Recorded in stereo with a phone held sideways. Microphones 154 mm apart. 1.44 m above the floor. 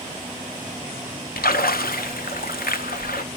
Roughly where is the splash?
Left.